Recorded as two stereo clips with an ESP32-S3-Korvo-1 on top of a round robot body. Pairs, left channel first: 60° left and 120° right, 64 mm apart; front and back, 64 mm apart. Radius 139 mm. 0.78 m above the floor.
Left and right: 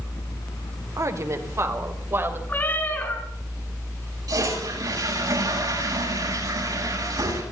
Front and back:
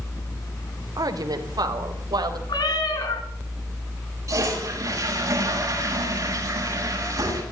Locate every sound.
1.0 s a woman speaking: 160° right, 3 m; by 2.4 s 175° right, 4 m
2.5 s a cat meowing: 5° right, 3 m
4.3 s a toilet flushing: 140° right, 8.5 m